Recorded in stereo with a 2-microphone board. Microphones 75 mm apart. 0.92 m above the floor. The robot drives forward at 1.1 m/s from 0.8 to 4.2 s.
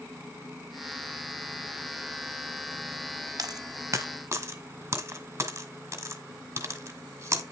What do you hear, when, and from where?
3.4 s a dropped coin: 55° right (ahead or behind), 1.3 m; by 7.4 s 35° right (ahead or behind), 1.8 m